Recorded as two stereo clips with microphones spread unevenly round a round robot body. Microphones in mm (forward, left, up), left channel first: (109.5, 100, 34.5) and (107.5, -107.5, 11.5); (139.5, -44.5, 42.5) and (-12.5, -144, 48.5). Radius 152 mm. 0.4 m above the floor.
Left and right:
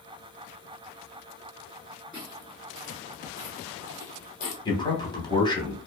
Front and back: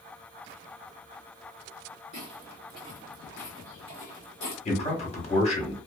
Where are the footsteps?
175° left, 1.0 m; by 4.5 s 85° left, 1.0 m.